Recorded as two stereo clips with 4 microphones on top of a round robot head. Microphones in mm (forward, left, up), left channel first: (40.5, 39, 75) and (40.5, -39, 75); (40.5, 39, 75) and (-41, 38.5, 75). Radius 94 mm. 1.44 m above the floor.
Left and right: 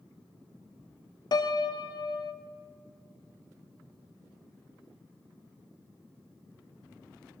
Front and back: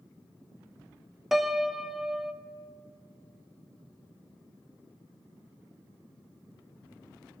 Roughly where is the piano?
Left.